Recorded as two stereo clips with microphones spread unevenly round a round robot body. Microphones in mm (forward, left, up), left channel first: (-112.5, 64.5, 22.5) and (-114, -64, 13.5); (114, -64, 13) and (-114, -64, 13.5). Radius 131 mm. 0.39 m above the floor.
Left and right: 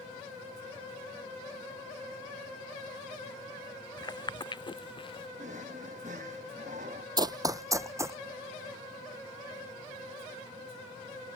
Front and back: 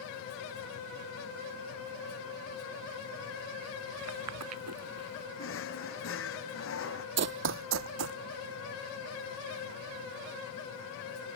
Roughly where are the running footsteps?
Behind right.